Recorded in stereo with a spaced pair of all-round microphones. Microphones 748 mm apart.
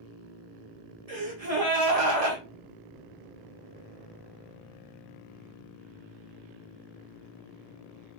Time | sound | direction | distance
1.1 | a gasp | 50° right (ahead or behind) | 1.2 m